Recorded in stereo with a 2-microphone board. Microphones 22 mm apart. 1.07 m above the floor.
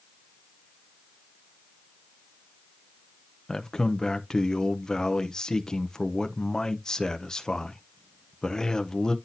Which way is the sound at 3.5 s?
35° left (ahead or behind).